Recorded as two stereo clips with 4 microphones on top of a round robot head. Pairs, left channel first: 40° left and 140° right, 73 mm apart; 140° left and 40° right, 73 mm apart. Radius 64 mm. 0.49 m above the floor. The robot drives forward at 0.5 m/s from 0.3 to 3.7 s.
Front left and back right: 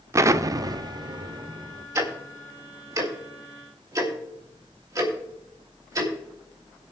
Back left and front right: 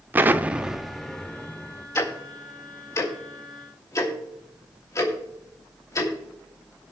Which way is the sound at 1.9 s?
175° right.